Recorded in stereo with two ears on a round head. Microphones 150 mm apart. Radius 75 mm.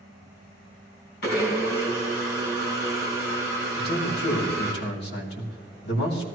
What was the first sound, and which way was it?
A blender, 65° left (ahead or behind).